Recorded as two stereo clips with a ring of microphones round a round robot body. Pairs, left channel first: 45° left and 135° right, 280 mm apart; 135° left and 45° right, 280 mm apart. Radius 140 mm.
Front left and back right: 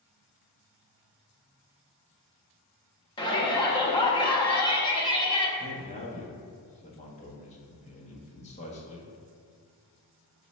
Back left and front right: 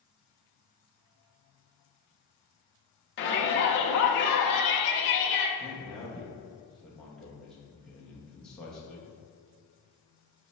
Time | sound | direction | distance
3.2 | a shout | 110° left | 0.6 m
5.6 | a man speaking | 50° left | 0.7 m